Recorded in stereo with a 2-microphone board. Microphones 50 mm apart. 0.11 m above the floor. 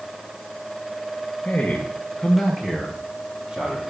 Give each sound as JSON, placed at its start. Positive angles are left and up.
{"t": 1.4, "sound": "a man speaking", "side_deg": 30, "distance_m": 1.5}